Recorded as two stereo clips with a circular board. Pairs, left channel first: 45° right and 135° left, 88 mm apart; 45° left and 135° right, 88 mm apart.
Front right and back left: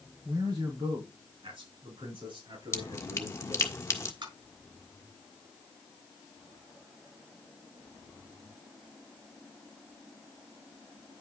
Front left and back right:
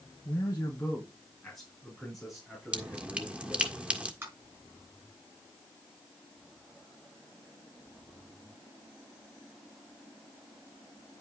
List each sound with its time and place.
0.2 s a man speaking: 105° left, 2.5 m; by 3.7 s 145° left, 7.5 m
2.7 s dripping: 70° right, 1.4 m
4.2 s tapping: 160° left, 7 m